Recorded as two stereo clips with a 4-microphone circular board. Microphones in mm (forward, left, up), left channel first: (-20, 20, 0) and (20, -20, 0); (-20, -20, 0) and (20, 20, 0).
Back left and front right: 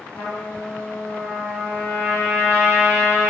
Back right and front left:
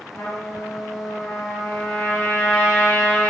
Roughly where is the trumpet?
Behind.